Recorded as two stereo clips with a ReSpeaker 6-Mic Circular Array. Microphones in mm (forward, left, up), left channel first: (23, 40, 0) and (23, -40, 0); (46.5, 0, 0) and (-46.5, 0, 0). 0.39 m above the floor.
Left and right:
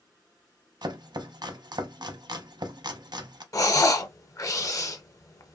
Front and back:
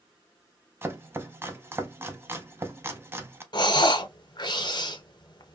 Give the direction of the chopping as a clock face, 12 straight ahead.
4 o'clock.